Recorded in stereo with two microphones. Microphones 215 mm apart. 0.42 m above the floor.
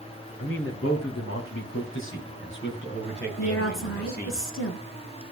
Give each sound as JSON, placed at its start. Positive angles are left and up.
{"t": 0.4, "sound": "a man speaking", "side_deg": 75, "distance_m": 5.5}
{"t": 3.4, "sound": "a woman speaking", "side_deg": 65, "distance_m": 5.5}